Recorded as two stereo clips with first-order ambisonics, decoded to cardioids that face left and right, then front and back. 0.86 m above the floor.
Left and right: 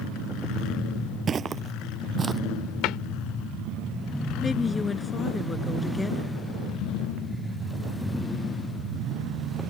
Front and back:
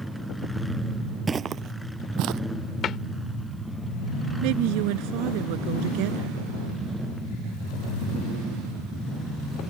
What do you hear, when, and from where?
1.3 s footsteps: 120° right; by 2.4 s 160° right
2.8 s a cupboard door: 55° left
4.4 s a woman speaking: 170° left